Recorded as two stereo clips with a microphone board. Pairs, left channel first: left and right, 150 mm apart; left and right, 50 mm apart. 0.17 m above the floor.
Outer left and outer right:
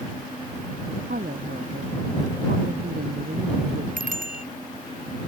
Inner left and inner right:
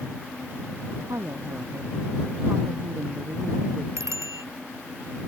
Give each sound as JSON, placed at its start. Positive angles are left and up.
{"t": 1.1, "sound": "a woman speaking", "side_deg": -75}
{"t": 4.0, "sound": "a bicycle bell", "side_deg": -65}